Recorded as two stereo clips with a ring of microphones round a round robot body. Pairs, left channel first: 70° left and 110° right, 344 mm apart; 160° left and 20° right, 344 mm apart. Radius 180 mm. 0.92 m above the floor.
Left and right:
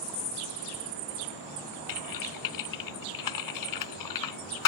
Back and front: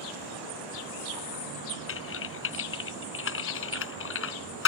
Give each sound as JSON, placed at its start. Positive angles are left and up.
{"t": 1.9, "sound": "typing on a keyboard", "azimuth_deg": 100}